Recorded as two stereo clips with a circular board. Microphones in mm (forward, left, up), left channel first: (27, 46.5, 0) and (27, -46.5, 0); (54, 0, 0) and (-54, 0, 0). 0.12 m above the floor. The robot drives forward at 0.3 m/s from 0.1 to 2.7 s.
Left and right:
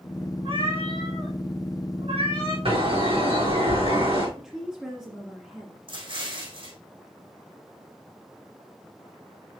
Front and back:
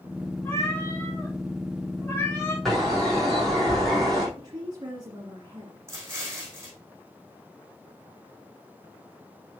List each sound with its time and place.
0.5 s a cat meowing: 65° right, 5 m; by 2.5 s 70° right, 4.5 m
2.6 s a bird: 90° right, 4.5 m
4.4 s a woman speaking: 170° right, 2.0 m
5.9 s an explosion: 115° right, 5 m